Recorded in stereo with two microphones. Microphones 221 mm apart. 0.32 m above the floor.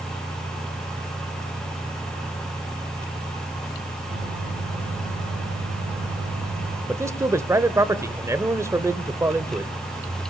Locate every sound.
4.1 s a microwave: 65° right (ahead or behind), 5.5 m
6.9 s a man speaking: 15° right (ahead or behind), 1.0 m